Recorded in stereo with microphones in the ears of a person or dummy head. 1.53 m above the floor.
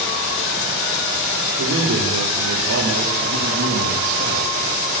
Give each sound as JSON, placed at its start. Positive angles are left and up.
{"t": 1.6, "sound": "a man speaking", "side_deg": -75, "distance_m": 5.0}